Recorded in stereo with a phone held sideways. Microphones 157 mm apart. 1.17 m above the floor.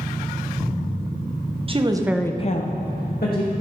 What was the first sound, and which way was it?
A woman speaking, 35° right (ahead or behind).